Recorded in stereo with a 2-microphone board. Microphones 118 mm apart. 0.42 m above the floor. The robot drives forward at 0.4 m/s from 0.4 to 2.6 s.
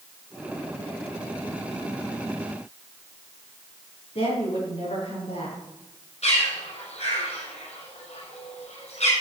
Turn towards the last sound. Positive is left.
turn(degrees=70)  # may be behind; listen again after turning